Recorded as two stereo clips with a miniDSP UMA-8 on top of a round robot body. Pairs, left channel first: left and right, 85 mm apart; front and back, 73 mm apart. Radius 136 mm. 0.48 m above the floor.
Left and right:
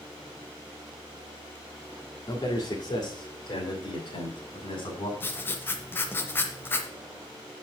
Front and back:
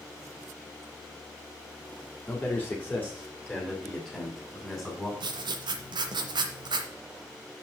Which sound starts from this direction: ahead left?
A man speaking, at 2.3 s.